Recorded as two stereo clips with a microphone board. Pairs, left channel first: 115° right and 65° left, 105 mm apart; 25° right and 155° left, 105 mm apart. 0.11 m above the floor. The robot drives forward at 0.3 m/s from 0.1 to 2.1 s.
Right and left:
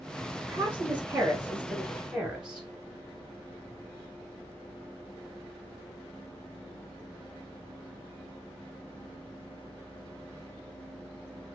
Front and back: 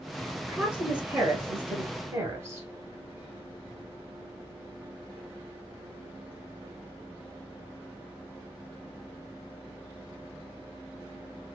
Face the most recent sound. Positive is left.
turn(degrees=140)